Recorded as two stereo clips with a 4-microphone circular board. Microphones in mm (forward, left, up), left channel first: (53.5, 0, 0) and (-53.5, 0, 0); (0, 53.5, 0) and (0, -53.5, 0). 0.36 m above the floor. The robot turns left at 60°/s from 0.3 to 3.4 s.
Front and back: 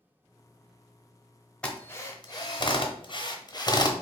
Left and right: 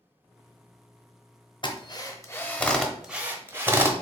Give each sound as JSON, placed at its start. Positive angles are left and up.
{"t": 1.6, "sound": "a drill", "azimuth_deg": 75, "distance_m": 0.7}